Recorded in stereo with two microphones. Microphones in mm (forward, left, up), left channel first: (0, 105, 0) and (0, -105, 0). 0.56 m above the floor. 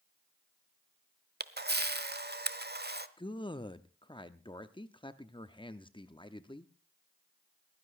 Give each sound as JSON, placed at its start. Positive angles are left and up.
{"t": 1.4, "sound": "a camera shutter", "side_deg": -50, "distance_m": 0.9}
{"t": 3.2, "sound": "a man speaking", "side_deg": 25, "distance_m": 0.7}